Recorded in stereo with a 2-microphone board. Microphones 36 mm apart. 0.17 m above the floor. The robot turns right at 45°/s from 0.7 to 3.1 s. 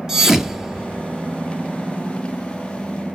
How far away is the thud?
About 1.2 m.